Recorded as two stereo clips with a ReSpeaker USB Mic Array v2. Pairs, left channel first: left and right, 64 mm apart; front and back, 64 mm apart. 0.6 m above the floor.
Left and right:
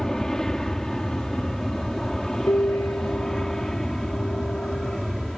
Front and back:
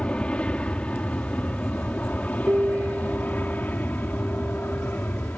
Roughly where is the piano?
Behind left.